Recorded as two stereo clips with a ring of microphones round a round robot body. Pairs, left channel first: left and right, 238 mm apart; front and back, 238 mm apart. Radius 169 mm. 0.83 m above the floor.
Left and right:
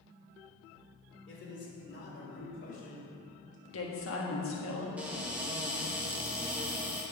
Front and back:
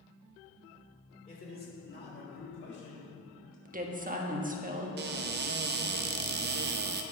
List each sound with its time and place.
1.3 s a man speaking: 55° left, 3 m; by 3.5 s 30° left, 4.5 m
3.6 s a woman speaking: 125° left, 1.4 m
5.0 s a cupboard door: 170° right, 0.5 m